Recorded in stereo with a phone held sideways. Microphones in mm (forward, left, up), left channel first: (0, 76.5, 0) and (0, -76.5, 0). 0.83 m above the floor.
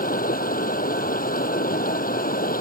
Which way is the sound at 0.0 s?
80° left.